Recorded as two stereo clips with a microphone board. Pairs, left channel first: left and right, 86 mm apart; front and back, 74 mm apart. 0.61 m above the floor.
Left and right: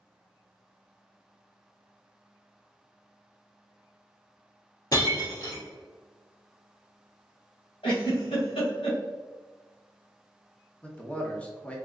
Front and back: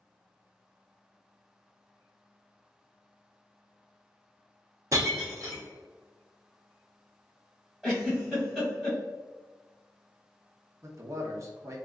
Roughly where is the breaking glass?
Behind left.